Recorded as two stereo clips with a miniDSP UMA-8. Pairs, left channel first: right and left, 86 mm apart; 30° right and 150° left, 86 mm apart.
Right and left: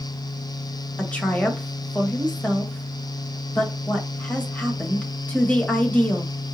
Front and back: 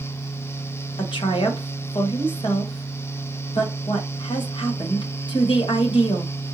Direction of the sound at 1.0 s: 20° right.